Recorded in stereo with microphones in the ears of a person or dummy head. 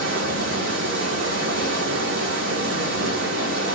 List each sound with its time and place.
0.0 s running water: 65° right (ahead or behind), 4.5 m